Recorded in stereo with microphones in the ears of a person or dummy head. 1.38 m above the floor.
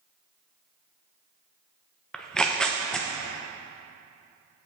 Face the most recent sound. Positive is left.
turn(degrees=0)  # may be behind; listen again after turning